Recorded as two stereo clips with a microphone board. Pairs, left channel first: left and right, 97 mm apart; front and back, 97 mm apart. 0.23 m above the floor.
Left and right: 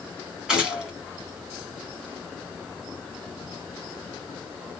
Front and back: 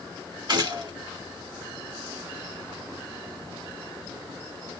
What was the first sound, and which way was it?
A gunshot, 170° right.